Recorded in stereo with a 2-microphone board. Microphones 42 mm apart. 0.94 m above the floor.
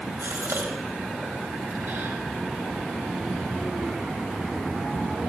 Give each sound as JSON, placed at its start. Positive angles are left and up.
{"t": 0.2, "sound": "a gasp", "side_deg": -75, "distance_m": 4.5}